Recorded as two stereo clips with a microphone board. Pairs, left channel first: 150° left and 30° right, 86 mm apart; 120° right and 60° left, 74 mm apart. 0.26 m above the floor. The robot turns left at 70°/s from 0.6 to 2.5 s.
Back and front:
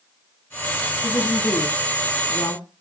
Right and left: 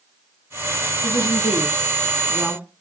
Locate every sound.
1.0 s a woman speaking: 125° right, 2.5 m; by 2.6 s 130° left, 2.5 m